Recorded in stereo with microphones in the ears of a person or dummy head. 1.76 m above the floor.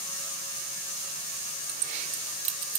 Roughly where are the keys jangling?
Right.